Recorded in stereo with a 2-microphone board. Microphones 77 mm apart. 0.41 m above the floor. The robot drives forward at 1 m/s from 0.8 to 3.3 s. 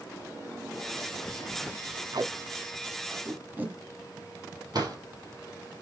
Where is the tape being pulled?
60° right (ahead or behind), 0.7 m; by 4.6 s 25° right (ahead or behind), 1.5 m.